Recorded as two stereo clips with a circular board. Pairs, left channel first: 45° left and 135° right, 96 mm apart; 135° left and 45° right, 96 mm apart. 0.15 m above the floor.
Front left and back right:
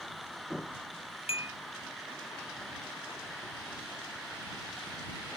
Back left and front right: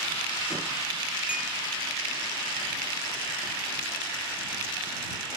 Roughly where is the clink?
Ahead left.